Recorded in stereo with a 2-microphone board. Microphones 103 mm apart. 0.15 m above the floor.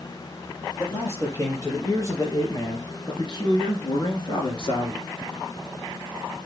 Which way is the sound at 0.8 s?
30° left (ahead or behind).